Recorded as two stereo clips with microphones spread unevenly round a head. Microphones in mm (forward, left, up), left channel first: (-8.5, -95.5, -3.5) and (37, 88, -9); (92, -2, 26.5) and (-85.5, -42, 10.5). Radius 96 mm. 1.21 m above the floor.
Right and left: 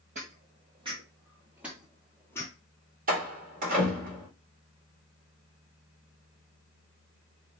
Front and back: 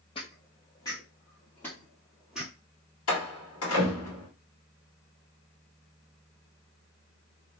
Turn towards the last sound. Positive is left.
turn(degrees=30)